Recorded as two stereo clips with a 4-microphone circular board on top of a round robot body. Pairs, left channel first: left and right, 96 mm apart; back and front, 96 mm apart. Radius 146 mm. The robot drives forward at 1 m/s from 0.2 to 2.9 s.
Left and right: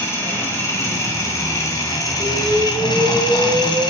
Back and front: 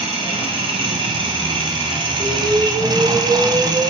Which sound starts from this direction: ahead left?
An engine running, at 0.0 s.